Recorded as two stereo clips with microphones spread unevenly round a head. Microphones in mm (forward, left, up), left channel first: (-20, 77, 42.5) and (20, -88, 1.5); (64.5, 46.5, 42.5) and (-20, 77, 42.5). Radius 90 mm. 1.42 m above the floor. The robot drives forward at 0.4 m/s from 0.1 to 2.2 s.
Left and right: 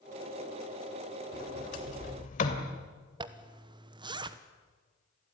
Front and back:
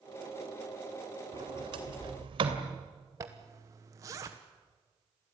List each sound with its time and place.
1.3 s a sliding door: 135° left, 2.5 m; by 2.7 s 140° left, 2.5 m
3.2 s a zipper: 135° right, 1.1 m